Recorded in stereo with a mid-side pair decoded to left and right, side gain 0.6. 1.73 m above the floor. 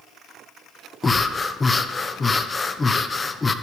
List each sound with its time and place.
1.0 s breathing: 20° left, 0.9 m